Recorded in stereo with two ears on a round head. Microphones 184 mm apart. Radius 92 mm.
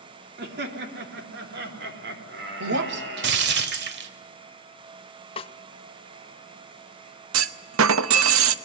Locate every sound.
0.4 s laughter: 50° right (ahead or behind), 3.5 m; by 3.5 s 55° right (ahead or behind), 5.5 m
2.6 s breaking glass: 55° right (ahead or behind), 1.4 m
5.4 s a snare drum: 25° left (ahead or behind), 0.8 m
7.3 s a clunk: 70° right (ahead or behind), 0.9 m